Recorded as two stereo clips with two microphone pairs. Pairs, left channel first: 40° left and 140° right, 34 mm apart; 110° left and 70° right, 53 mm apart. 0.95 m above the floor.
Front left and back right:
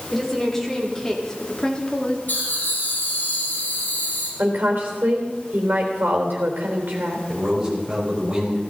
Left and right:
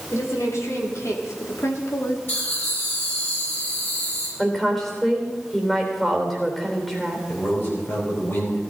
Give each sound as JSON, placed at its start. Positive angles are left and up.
{"t": 0.1, "sound": "a woman speaking", "azimuth_deg": 120, "distance_m": 3.0}
{"t": 2.3, "sound": "laughter", "azimuth_deg": 65, "distance_m": 8.0}
{"t": 4.4, "sound": "a woman speaking", "azimuth_deg": -165, "distance_m": 3.5}
{"t": 7.3, "sound": "a man speaking", "azimuth_deg": 150, "distance_m": 5.0}